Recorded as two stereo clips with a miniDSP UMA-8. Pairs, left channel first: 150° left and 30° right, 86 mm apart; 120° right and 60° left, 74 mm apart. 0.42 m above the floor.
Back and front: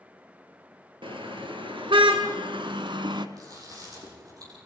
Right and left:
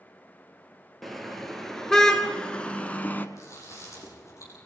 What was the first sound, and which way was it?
A car horn, 30° right.